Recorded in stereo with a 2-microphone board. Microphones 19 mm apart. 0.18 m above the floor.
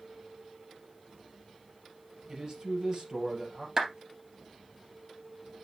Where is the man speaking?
40° right (ahead or behind), 3.5 m.